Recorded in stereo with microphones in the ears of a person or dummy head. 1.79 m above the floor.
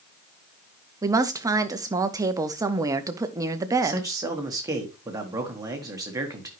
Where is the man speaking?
20° right (ahead or behind), 1.3 m.